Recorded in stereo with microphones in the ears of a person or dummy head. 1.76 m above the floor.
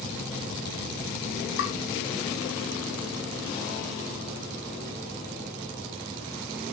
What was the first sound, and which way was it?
Tapping, 70° left (ahead or behind).